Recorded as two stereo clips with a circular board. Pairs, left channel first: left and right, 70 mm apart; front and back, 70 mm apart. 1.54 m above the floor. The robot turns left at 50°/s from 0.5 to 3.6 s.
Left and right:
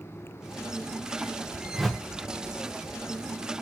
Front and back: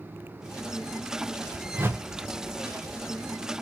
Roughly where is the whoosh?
Behind.